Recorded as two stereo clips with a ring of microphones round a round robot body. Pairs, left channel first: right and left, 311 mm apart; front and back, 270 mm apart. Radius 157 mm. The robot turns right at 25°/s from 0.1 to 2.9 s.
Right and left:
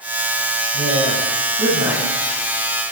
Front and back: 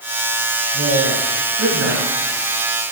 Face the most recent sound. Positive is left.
turn(degrees=-175)